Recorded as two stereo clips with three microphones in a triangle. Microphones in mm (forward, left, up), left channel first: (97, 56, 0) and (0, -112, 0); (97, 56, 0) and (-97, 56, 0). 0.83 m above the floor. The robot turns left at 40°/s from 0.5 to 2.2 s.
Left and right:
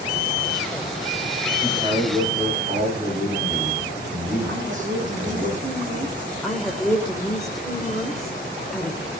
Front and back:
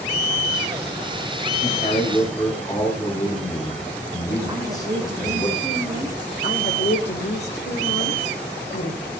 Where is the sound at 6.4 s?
30° right, 3.5 m.